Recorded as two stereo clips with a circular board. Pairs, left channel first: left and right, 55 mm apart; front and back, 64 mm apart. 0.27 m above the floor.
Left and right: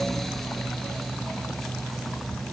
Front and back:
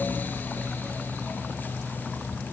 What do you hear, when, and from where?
Only background noise.